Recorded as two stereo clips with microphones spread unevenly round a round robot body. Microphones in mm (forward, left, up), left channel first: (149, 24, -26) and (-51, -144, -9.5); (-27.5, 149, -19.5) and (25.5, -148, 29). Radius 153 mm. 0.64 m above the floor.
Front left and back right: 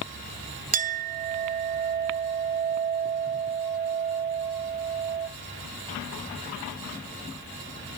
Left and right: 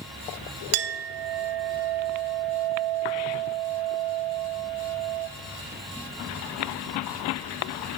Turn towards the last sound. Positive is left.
turn(degrees=-80)